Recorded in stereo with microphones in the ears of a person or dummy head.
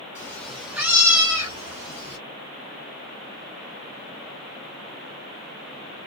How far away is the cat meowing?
About 0.8 m.